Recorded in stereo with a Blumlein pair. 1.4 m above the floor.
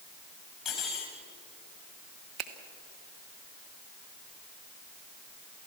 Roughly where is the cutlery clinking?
Ahead.